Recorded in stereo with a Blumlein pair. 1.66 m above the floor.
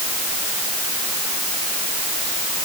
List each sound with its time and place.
Only background noise.